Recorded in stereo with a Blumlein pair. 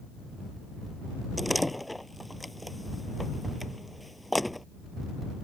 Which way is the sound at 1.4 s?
Straight ahead.